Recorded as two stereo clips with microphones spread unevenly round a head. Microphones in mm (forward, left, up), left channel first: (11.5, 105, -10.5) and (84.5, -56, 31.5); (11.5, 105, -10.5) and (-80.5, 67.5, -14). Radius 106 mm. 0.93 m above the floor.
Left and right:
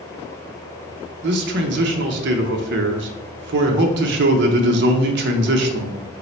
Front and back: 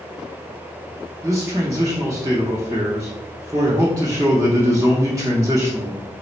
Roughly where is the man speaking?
Right.